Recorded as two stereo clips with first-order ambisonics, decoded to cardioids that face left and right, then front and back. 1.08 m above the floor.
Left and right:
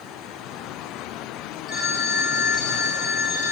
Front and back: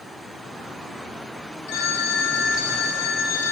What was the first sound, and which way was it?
A phone ringing, 25° left.